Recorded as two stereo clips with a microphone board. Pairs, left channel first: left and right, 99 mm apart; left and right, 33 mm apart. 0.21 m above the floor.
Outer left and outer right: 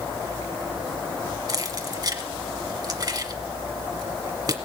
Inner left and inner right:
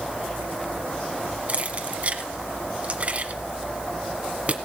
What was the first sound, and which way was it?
Keys jangling, 40° right (ahead or behind).